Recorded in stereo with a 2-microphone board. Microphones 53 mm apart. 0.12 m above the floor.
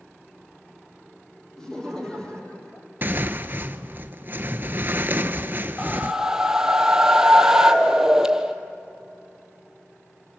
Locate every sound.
1.6 s laughter: 10° left (ahead or behind), 4.5 m; by 2.9 s 25° left (ahead or behind), 5.5 m
3.0 s tearing paper: 40° right (ahead or behind), 0.8 m
5.8 s a whoosh: 10° right (ahead or behind), 1.3 m